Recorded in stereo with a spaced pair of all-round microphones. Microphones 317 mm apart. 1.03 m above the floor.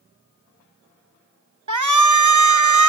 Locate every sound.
1.7 s a shout: 60° right (ahead or behind), 0.9 m